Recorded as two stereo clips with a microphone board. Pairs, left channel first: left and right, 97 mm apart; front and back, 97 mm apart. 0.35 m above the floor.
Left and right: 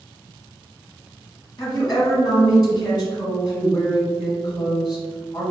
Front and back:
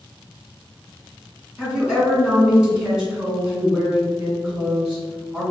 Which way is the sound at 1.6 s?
110° left.